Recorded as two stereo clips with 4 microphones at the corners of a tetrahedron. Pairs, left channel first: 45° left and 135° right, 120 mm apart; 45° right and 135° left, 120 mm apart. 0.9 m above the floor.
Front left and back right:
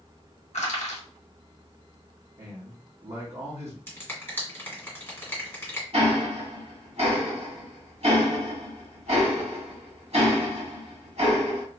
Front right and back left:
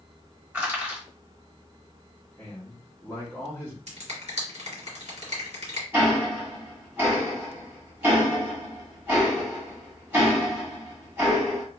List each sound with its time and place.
0.5 s crushing: 55° left, 1.1 m
2.4 s a man speaking: 120° right, 1.1 m
3.9 s a finger snap: 115° left, 1.6 m
5.9 s ticking: 155° right, 1.5 m